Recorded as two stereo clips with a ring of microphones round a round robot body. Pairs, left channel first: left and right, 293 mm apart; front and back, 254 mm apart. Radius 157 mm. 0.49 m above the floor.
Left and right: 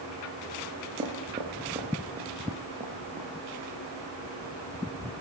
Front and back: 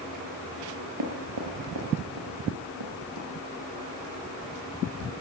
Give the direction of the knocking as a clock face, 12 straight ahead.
5 o'clock.